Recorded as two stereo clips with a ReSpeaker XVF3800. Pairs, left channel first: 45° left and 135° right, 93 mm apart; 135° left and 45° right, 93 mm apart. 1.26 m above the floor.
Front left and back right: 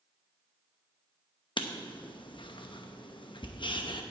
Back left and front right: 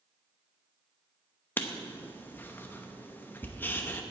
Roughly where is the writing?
Left.